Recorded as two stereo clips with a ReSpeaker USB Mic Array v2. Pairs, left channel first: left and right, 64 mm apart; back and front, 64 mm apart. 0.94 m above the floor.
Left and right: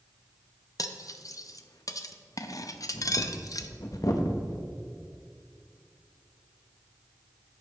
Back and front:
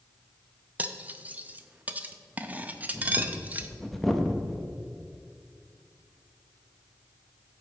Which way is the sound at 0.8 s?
65° left.